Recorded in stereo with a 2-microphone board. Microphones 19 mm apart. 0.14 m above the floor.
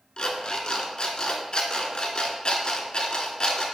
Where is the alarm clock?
50° left (ahead or behind), 0.6 m.